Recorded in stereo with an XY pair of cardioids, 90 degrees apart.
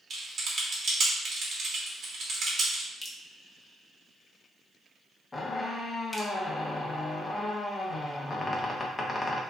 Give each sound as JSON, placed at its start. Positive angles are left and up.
{"t": 0.1, "sound": "typing on a keyboard", "azimuth_deg": -55, "distance_m": 1.2}
{"t": 3.0, "sound": "dripping", "azimuth_deg": 25, "distance_m": 1.0}
{"t": 5.3, "sound": "a squeak", "azimuth_deg": 25, "distance_m": 0.8}